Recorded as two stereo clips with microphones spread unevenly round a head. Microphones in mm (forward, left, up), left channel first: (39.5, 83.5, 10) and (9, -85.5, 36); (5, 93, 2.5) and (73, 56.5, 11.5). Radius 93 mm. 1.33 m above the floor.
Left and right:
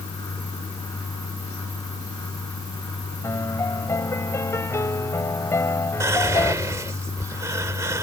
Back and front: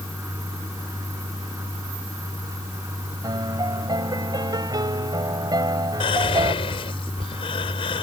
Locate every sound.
3.2 s a piano: 5° left
6.0 s whispering: 175° right